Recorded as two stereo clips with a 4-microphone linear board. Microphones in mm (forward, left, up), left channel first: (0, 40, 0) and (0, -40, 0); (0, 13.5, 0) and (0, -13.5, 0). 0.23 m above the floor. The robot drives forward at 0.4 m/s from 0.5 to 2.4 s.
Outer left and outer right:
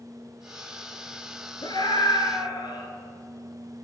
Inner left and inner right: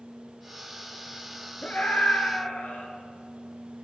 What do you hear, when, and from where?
1.6 s a scream: 65° left (ahead or behind), 4 m; by 2.9 s 70° left (ahead or behind), 4 m